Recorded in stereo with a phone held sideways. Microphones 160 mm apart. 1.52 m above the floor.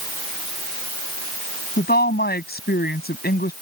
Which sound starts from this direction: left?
A woman speaking, at 1.8 s.